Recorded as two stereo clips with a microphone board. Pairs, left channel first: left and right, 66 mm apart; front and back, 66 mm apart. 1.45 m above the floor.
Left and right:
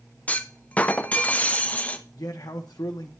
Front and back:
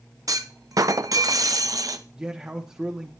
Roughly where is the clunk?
Behind left.